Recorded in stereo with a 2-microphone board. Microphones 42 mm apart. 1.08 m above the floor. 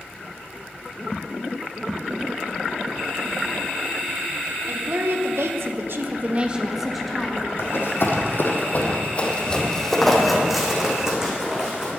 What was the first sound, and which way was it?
A woman speaking, 70° right (ahead or behind).